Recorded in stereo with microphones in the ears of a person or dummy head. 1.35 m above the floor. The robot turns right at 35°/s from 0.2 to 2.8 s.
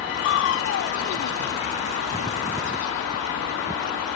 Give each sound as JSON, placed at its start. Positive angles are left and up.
{"t": 0.2, "sound": "crushing", "azimuth_deg": 70}